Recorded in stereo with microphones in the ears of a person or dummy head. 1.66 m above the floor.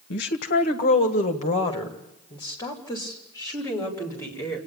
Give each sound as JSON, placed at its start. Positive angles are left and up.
{"t": 0.1, "sound": "a woman speaking", "side_deg": 70, "distance_m": 1.1}